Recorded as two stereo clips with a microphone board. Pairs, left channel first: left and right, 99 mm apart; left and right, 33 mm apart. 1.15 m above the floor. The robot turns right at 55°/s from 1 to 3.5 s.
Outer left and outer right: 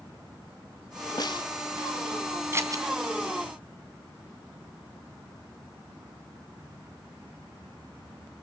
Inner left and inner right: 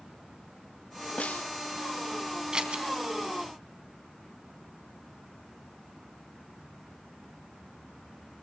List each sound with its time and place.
1.2 s a snare drum: 45° left (ahead or behind), 0.6 m; by 1.5 s 60° left (ahead or behind), 0.6 m
2.5 s scissors: 25° right (ahead or behind), 2.5 m; by 2.9 s 40° right (ahead or behind), 2.5 m